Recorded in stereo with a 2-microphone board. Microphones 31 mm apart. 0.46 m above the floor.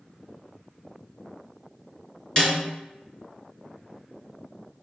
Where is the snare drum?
30° left (ahead or behind), 3.5 m.